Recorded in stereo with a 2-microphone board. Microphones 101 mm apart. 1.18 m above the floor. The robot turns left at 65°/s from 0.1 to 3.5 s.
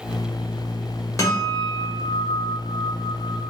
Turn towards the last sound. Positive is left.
turn(degrees=-115)